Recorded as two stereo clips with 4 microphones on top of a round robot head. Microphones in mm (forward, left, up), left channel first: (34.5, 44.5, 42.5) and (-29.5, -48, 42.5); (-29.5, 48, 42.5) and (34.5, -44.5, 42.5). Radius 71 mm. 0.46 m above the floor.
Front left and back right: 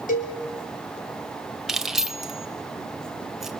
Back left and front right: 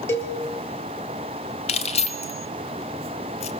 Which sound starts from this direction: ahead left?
A cowbell, at 0.1 s.